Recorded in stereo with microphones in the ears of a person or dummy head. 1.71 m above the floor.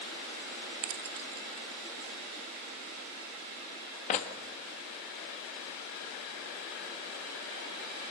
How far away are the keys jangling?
About 1.4 m.